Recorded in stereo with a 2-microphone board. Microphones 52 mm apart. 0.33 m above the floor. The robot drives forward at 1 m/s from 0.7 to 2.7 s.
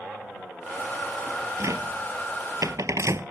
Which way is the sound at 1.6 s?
70° right (ahead or behind).